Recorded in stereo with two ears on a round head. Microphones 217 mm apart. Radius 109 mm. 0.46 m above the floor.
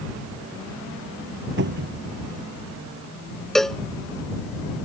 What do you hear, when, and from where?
1.6 s a cupboard door: 50° right (ahead or behind)
3.5 s a cowbell: centre (ahead or behind)